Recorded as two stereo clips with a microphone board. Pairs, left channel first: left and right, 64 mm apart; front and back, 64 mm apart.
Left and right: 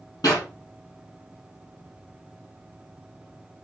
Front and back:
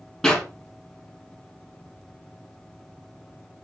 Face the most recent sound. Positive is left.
turn(degrees=80)